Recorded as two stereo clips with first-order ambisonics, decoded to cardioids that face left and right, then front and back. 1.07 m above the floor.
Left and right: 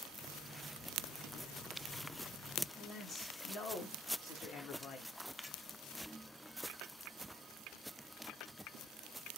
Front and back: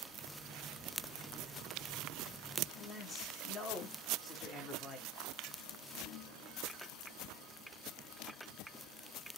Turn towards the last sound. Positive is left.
turn(degrees=65)